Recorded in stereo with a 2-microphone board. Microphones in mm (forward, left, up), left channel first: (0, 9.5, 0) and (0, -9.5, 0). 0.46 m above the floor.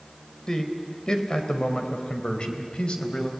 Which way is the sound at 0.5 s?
40° left (ahead or behind).